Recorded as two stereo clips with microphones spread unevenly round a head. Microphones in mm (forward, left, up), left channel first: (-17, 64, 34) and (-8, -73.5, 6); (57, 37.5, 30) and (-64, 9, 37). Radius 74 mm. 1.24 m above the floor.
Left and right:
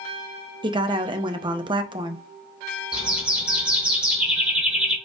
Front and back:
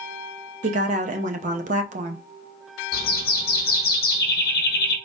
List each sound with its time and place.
0.6 s a woman speaking: 140° right, 0.6 m
2.9 s a bird: straight ahead, 0.7 m